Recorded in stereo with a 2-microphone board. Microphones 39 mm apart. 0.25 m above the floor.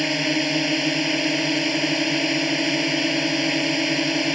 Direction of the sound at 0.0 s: Centre (ahead or behind).